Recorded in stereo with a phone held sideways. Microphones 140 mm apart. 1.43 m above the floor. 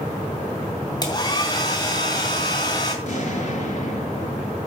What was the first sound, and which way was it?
A hair dryer, 30° left (ahead or behind).